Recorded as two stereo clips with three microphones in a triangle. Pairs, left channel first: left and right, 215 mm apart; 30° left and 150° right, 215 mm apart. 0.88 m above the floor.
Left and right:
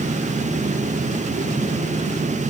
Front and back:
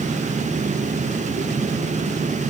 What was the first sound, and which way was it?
Only background noise.